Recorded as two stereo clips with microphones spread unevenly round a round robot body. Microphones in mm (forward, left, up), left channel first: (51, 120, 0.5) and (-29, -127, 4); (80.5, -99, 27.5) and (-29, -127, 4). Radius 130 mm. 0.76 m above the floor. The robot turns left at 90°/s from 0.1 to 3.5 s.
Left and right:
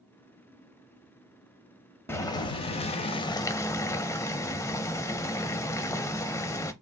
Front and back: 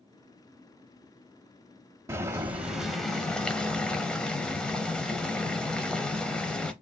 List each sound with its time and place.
2.1 s boiling: 140° left, 0.5 m; by 6.7 s 15° left, 0.5 m